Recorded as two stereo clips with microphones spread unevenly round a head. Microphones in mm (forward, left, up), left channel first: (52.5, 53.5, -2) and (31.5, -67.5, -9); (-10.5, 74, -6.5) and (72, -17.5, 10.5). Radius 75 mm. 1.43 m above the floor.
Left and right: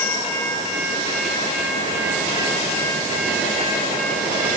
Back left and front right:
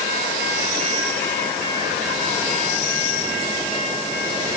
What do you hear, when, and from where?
Only background noise.